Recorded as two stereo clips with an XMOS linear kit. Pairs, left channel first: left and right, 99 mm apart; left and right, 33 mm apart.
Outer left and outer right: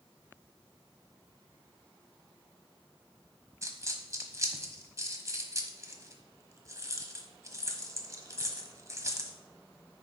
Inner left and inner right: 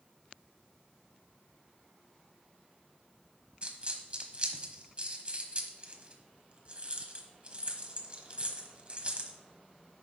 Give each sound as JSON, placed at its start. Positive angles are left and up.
{"t": 3.6, "sound": "a dropped coin", "side_deg": -35, "distance_m": 1.1}